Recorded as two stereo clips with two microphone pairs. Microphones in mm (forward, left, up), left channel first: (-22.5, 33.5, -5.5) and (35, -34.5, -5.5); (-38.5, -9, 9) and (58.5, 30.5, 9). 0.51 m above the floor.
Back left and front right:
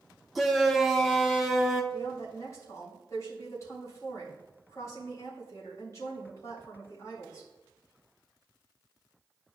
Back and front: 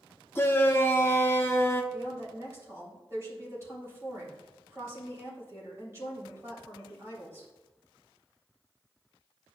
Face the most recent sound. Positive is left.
turn(degrees=80)